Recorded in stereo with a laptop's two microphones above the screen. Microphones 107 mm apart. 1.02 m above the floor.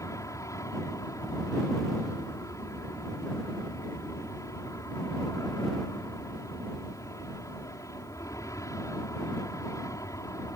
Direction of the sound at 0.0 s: 30° left (ahead or behind).